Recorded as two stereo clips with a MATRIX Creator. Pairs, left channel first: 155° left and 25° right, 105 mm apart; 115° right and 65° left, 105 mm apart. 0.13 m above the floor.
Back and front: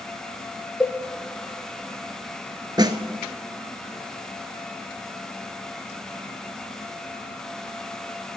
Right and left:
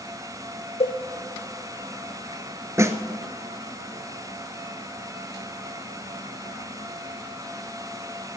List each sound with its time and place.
0.8 s a cowbell: 120° right, 1.0 m
2.8 s a snare drum: 15° left, 0.8 m